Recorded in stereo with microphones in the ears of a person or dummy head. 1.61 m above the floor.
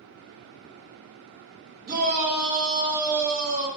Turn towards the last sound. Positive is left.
turn(degrees=-35)  # may be behind; listen again after turning